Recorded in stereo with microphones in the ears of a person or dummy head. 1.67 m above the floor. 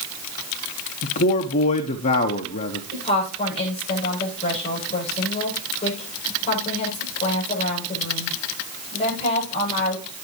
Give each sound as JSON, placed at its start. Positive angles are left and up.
{"t": 1.0, "sound": "a man speaking", "side_deg": 45, "distance_m": 0.8}
{"t": 2.9, "sound": "a woman speaking", "side_deg": 35, "distance_m": 7.5}